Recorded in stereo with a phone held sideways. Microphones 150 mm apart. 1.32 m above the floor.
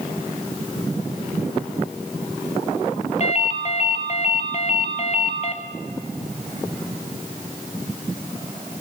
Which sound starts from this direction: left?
A ringtone, at 3.2 s.